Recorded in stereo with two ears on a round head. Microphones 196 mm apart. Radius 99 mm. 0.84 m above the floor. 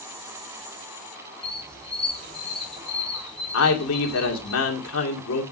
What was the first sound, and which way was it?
A squeak, 5° left (ahead or behind).